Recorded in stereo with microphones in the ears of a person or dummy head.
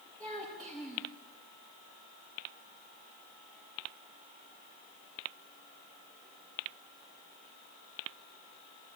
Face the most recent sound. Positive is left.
turn(degrees=10)  # may be behind; listen again after turning